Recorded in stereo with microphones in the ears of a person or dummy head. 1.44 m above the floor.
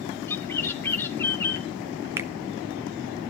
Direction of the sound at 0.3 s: 15° left (ahead or behind).